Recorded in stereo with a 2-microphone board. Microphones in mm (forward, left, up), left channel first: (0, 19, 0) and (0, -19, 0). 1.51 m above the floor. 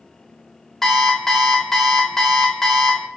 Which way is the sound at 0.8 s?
10° left (ahead or behind).